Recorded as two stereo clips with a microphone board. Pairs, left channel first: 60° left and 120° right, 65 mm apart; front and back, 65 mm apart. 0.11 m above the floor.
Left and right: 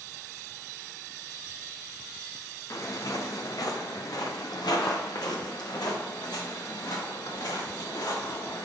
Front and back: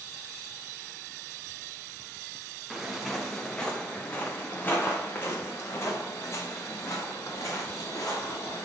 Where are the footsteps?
95° left, 2.5 m; by 8.7 s 40° left, 6.5 m.